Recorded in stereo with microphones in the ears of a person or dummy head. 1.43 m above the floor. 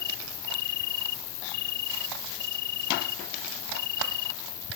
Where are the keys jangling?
No keys jangling in this recording.